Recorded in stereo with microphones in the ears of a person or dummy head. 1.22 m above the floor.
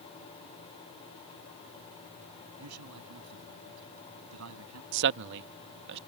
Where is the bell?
I don't hear a bell.